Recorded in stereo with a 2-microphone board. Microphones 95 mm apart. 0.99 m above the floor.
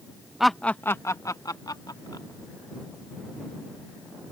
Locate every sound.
0.4 s laughter: 5° right (ahead or behind); by 2.3 s 50° left (ahead or behind)